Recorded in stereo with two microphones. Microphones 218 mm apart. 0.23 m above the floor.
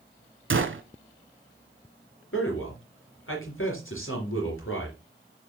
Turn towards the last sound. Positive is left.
turn(degrees=70)  # may be behind; listen again after turning